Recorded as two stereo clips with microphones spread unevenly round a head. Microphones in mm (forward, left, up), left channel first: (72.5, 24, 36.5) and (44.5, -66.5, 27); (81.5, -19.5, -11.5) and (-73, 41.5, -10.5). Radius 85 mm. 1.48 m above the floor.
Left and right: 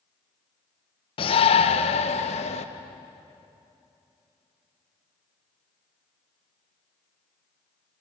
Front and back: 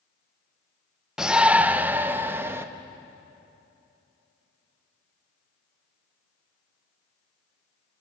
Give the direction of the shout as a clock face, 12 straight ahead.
10 o'clock.